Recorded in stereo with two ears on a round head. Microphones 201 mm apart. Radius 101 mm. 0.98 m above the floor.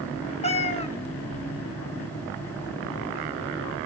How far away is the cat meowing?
About 0.9 m.